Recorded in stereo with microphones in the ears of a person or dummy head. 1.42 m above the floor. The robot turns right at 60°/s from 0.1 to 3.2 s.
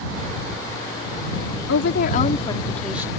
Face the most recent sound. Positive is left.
turn(degrees=-155)